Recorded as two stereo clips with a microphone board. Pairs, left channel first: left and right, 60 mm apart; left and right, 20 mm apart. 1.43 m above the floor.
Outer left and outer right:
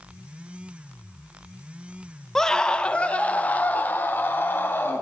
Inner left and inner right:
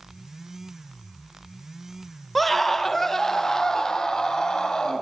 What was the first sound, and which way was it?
A scream, 5° left (ahead or behind).